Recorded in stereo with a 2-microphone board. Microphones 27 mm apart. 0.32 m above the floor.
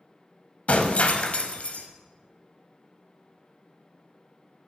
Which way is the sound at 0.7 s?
55° left (ahead or behind).